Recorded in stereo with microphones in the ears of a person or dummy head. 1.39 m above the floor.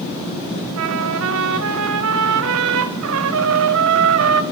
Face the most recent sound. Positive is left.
turn(degrees=-70)  # may be behind; listen again after turning